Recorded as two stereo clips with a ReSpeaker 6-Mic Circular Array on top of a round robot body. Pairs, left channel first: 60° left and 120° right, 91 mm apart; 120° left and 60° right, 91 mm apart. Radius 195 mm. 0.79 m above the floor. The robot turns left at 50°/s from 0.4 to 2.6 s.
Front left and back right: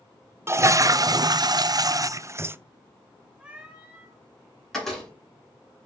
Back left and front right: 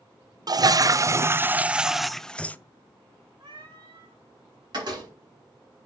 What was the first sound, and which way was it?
A toilet flushing, 70° right.